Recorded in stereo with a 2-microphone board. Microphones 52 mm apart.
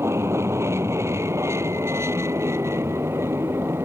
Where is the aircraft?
60° right (ahead or behind); by 3.9 s 55° right (ahead or behind).